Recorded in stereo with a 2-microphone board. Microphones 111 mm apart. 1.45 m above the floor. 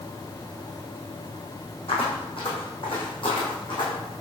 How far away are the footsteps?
About 4.5 m.